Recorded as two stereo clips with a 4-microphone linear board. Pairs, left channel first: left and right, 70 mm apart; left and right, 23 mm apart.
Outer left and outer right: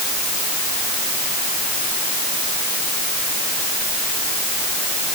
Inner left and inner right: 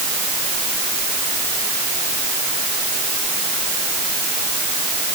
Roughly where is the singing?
I don't hear singing.